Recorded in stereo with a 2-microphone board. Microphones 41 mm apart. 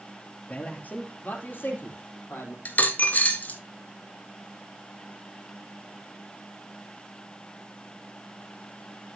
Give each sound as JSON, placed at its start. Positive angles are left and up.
{"t": 0.5, "sound": "a man speaking", "side_deg": 35, "distance_m": 2.5}
{"t": 2.6, "sound": "a dropped coin", "side_deg": 40, "distance_m": 2.5}